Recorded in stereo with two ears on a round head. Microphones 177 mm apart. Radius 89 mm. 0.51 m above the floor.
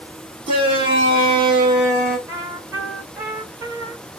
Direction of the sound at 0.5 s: 25° right (ahead or behind).